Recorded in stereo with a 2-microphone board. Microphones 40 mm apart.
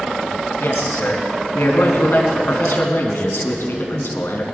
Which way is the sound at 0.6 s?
75° left (ahead or behind).